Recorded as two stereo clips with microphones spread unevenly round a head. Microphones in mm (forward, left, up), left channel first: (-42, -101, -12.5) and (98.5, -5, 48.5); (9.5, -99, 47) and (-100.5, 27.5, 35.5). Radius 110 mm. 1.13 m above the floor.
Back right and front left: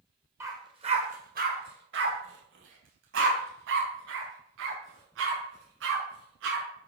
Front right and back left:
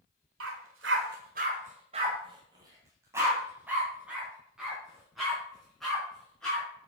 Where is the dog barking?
105° left, 1.6 m; by 6.6 s 40° left, 6.5 m.